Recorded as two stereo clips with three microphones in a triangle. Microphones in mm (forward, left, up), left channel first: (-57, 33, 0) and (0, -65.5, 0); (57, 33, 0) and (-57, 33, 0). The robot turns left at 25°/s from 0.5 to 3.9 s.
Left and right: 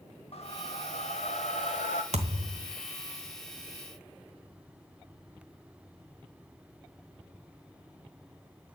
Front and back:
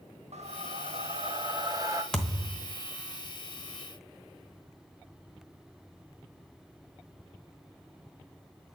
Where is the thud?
85° right, 1.0 m; by 2.7 s 100° right, 1.0 m.